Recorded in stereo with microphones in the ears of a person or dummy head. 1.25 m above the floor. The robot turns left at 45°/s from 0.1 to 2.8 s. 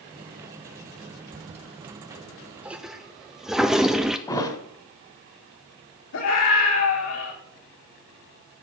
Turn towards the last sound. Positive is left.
turn(degrees=75)  # may be behind; listen again after turning